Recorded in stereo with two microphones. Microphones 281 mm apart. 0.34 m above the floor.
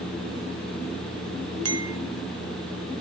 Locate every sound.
1.6 s a clink: 60° right (ahead or behind), 1.1 m